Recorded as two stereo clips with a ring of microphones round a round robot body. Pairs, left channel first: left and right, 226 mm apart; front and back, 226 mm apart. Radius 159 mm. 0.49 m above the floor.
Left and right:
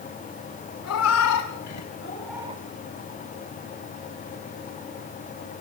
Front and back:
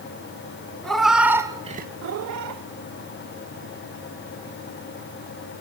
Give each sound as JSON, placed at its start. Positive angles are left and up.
{"t": 0.8, "sound": "a cat meowing", "azimuth_deg": 90, "distance_m": 1.9}